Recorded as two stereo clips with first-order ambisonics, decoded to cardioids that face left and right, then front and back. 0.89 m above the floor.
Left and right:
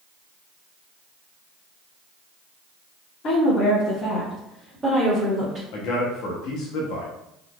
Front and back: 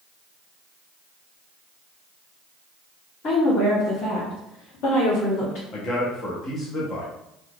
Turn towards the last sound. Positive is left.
turn(degrees=65)